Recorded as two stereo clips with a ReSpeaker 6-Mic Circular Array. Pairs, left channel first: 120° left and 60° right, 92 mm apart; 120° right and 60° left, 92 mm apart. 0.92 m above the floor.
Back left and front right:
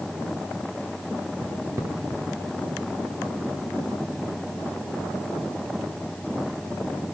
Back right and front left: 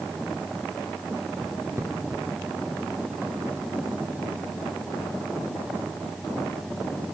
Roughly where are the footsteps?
Ahead.